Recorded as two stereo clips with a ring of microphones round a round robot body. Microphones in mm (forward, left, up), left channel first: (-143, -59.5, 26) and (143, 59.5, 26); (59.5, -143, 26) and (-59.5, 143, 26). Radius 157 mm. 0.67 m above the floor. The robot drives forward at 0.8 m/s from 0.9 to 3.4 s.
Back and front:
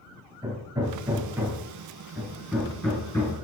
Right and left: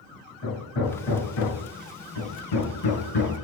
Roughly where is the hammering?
Ahead right.